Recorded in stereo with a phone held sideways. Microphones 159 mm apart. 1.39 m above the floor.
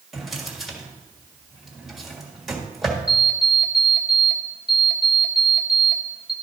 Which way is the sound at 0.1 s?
Centre (ahead or behind).